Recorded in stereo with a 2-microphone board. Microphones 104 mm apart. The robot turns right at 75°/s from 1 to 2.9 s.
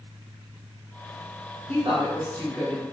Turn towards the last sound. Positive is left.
turn(degrees=10)